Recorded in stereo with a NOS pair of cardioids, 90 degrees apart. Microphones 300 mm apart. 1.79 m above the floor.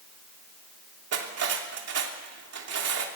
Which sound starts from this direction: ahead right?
Cutlery clinking, at 1.1 s.